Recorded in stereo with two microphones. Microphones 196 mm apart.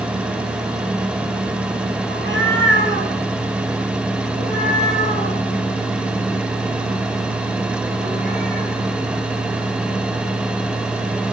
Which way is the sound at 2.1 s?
75° right (ahead or behind).